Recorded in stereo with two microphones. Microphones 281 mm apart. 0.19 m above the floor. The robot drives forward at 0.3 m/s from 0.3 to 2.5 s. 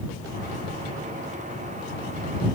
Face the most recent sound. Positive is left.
No sound to turn to.